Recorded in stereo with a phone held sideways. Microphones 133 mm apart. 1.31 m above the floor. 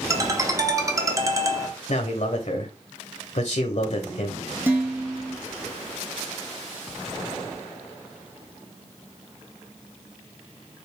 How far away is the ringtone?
About 0.8 m.